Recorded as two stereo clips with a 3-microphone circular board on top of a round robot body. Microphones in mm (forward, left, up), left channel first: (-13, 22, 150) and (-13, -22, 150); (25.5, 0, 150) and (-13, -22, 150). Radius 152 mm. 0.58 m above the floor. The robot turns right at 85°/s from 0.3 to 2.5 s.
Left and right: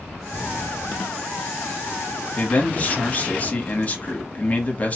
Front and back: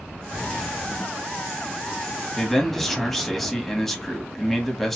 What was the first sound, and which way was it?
A man speaking, 95° left.